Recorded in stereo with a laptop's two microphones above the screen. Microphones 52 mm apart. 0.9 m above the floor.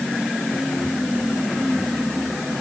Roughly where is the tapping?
I don't hear tapping.